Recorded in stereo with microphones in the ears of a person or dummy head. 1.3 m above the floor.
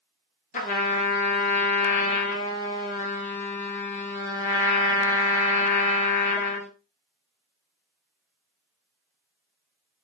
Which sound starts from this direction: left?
A trumpet, at 0.5 s.